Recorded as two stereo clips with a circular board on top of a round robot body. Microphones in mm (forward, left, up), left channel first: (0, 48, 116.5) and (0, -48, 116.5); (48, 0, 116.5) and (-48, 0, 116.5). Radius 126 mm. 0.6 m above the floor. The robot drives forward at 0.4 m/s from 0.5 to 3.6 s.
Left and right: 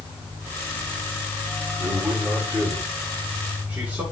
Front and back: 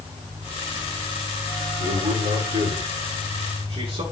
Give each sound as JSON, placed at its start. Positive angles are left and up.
{"t": 1.8, "sound": "a man speaking", "azimuth_deg": -165, "distance_m": 7.0}